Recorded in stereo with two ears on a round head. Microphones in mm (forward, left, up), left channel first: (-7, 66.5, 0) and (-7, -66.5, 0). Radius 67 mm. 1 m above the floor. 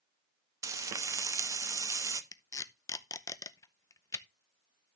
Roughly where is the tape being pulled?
Left.